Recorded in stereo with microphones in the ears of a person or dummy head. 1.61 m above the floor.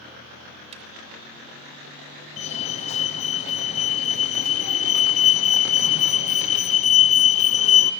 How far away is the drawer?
About 3 m.